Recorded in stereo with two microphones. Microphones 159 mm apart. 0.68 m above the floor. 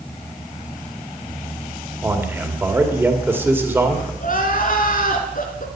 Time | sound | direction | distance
2.0 | a man speaking | 15° right (ahead or behind) | 2.5 m
4.2 | crying | 60° left (ahead or behind) | 2.5 m